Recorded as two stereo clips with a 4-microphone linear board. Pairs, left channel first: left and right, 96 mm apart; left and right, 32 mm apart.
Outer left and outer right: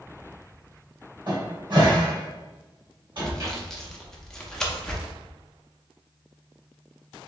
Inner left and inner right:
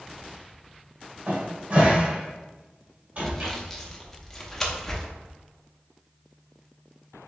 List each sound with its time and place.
1.3 s a cupboard door: 50° right (ahead or behind), 1.7 m
3.2 s sawing: 5° left (ahead or behind), 0.8 m